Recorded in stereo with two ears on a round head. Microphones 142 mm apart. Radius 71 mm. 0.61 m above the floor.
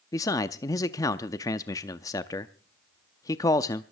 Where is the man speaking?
20° left (ahead or behind), 0.5 m.